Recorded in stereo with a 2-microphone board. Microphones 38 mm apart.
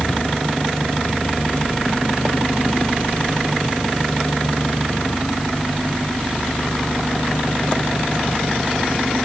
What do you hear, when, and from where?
Only background noise.